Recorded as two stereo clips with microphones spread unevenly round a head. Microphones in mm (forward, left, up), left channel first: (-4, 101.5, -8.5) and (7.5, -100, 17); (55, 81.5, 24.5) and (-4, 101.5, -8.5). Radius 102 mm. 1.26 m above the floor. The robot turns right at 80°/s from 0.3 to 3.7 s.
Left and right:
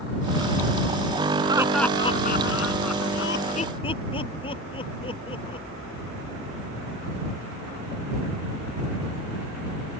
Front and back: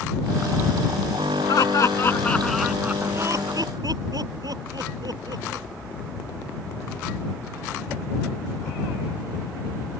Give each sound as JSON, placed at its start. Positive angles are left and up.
{"t": 1.5, "sound": "laughter", "azimuth_deg": -20}